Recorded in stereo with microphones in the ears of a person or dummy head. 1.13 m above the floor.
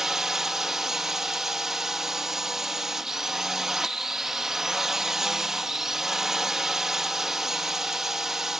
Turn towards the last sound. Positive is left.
turn(degrees=0)  # may be behind; listen again after turning